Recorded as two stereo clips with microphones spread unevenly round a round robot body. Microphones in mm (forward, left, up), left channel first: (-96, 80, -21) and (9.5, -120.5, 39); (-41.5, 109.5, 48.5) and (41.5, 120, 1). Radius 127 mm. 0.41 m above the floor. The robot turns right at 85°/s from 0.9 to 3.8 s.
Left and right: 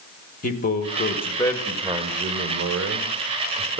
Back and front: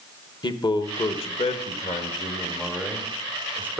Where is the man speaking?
135° left, 1.7 m; by 3.8 s 20° left, 1.7 m.